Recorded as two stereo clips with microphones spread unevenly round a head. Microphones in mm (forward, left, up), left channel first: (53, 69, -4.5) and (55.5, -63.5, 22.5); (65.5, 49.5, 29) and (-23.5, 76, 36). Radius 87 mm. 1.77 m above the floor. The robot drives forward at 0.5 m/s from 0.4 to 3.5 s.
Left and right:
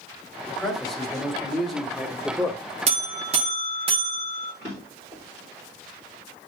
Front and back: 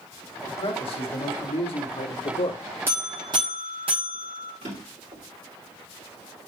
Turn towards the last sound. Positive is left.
turn(degrees=-170)